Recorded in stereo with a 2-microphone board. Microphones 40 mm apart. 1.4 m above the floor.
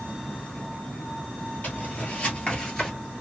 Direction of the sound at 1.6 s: 45° left (ahead or behind).